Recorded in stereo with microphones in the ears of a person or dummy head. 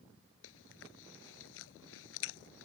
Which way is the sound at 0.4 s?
75° left (ahead or behind).